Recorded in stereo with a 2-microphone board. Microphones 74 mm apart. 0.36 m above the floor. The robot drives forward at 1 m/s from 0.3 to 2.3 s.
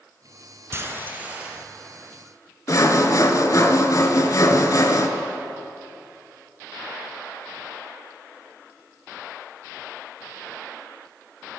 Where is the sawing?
50° left (ahead or behind), 1.0 m.